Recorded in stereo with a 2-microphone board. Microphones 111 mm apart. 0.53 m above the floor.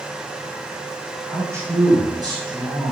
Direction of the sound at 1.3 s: 20° right (ahead or behind).